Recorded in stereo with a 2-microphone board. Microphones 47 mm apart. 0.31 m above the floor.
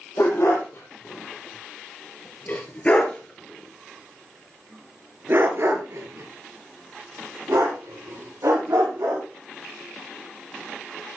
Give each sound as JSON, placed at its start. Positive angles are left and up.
{"t": 0.2, "sound": "a dog barking", "side_deg": 55, "distance_m": 5.5}